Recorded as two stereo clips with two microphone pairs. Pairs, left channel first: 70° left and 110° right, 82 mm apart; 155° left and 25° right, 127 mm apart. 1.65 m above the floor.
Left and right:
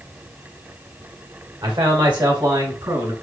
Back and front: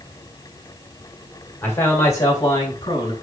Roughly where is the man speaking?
Behind right.